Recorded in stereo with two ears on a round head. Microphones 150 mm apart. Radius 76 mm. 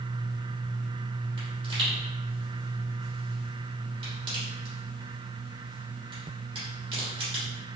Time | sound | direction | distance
1.4 | a pop | 30° right (ahead or behind) | 1.6 m